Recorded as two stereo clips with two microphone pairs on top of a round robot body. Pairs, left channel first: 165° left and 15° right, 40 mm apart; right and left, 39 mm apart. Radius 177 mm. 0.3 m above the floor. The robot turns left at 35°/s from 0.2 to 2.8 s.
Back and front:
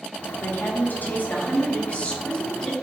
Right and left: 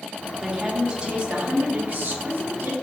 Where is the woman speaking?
175° left, 1.2 m; by 2.7 s 95° left, 1.2 m.